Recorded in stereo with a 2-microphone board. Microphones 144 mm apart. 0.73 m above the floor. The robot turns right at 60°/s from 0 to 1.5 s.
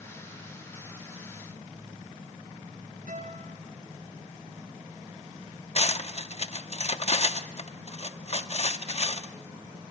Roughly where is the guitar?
Right.